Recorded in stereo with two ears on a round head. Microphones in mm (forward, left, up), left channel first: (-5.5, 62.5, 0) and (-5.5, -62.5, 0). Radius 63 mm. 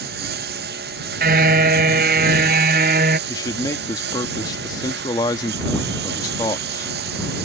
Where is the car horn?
70° right (ahead or behind).